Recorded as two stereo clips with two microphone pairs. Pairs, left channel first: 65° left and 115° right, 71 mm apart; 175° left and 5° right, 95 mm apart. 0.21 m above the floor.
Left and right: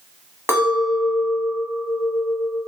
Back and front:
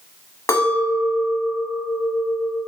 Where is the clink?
145° right, 0.8 m.